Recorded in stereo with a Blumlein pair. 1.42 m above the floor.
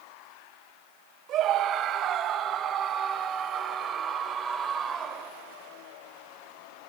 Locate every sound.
1.3 s a scream: 30° right, 3.5 m; by 5.3 s 10° right, 6 m